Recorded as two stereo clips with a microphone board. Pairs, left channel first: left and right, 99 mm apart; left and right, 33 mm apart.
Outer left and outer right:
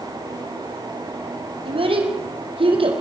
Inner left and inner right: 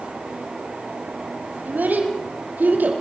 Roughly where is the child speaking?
Right.